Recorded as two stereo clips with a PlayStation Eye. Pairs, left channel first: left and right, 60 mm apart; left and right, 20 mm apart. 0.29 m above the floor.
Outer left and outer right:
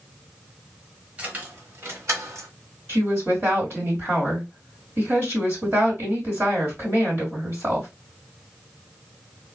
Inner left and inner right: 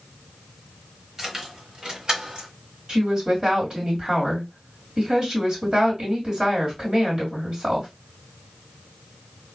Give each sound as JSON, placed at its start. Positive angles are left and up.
{"t": 1.2, "sound": "keys jangling", "side_deg": -20, "distance_m": 0.8}
{"t": 2.9, "sound": "a woman speaking", "side_deg": -40, "distance_m": 1.9}